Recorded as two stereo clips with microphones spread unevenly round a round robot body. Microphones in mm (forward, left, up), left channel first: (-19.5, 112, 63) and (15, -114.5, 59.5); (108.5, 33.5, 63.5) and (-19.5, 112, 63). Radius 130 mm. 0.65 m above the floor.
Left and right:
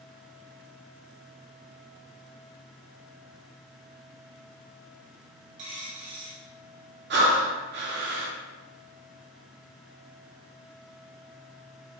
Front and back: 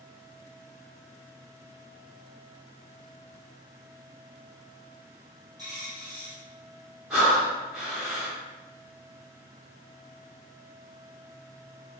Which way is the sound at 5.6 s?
135° right.